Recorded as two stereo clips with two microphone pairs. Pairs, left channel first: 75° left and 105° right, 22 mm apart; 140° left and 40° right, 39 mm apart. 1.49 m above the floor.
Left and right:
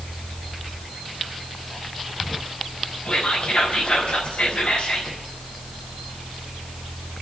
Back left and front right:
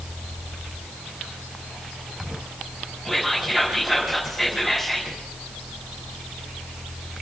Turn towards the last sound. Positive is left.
turn(degrees=50)